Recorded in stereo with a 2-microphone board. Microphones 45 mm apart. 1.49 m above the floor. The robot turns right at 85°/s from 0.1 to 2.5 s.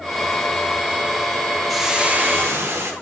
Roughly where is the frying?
Behind.